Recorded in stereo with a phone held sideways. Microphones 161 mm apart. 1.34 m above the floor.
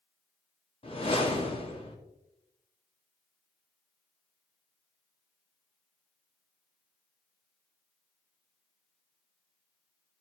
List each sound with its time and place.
0.8 s a whoosh: 35° left (ahead or behind), 1.8 m